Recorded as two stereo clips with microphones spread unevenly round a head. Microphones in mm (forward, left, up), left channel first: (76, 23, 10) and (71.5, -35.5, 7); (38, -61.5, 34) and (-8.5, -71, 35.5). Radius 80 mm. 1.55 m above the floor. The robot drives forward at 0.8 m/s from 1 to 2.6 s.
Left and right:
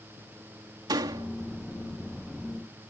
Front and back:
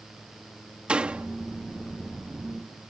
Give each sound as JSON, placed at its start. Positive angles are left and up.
{"t": 0.9, "sound": "a door slam", "azimuth_deg": -100}